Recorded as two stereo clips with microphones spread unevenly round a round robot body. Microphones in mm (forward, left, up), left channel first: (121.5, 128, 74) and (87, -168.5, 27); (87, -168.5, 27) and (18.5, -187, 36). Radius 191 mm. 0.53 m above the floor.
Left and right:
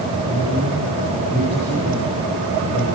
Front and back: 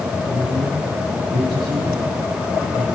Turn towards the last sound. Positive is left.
turn(degrees=170)